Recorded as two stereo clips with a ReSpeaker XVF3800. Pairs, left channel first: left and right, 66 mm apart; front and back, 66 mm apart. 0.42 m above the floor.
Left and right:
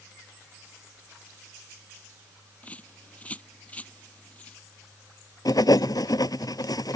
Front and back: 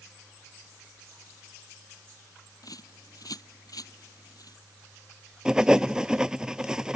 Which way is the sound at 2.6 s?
20° left.